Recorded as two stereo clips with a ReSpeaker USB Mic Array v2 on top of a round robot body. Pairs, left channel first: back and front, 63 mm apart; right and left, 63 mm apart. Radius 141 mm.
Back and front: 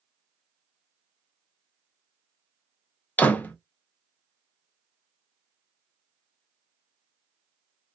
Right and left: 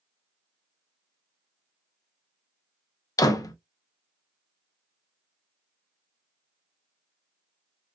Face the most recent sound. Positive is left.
turn(degrees=-115)